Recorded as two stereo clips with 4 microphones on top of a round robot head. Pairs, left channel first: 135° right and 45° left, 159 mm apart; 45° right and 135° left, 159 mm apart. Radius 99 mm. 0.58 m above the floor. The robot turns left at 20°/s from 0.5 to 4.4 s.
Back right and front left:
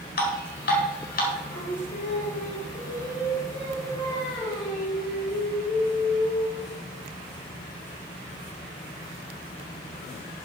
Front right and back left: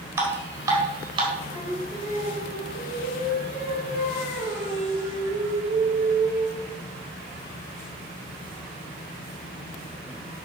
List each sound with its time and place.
0.2 s dripping: 150° right, 3.5 m; by 1.3 s 165° right, 3.5 m
1.5 s singing: 150° right, 6 m; by 6.8 s 150° left, 6 m